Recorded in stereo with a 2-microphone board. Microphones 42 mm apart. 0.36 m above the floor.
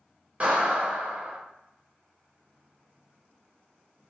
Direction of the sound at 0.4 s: 35° right (ahead or behind).